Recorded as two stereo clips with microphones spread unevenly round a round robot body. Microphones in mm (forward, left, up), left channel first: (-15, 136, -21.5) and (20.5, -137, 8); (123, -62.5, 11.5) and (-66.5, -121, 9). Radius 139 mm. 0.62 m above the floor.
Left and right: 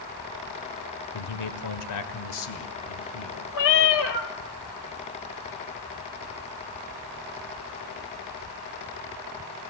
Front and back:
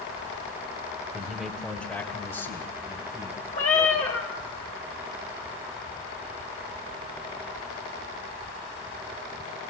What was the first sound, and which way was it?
A man speaking, 115° left.